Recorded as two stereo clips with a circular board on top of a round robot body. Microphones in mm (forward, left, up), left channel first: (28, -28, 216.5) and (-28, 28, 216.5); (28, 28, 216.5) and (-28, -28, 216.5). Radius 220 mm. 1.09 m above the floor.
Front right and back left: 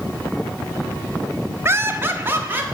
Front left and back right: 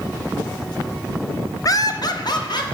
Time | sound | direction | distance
1.6 | laughter | 80° left | 0.9 m